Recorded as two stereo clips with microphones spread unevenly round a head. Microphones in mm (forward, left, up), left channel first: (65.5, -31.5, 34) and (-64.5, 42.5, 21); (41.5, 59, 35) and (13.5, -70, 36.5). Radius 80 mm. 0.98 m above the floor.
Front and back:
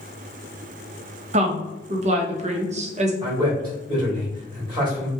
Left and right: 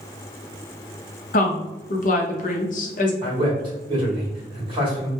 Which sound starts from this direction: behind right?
A man speaking, at 3.2 s.